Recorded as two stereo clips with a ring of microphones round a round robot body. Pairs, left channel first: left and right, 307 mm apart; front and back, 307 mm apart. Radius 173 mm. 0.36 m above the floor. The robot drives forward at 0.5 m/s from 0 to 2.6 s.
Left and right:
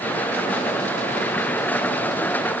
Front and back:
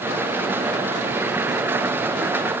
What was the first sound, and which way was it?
Only background noise.